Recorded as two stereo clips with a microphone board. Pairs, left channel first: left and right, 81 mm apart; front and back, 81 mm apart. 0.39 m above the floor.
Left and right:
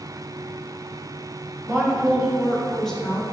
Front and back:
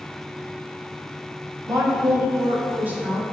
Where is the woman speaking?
145° right, 2 m; by 3.2 s 135° left, 1.5 m.